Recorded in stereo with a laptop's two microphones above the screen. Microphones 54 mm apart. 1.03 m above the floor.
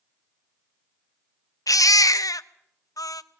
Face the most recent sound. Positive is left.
turn(degrees=85)